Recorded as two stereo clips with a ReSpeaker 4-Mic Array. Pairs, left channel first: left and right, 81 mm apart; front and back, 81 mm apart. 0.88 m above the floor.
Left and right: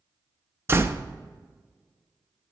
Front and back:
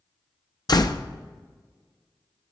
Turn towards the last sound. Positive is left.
turn(degrees=-30)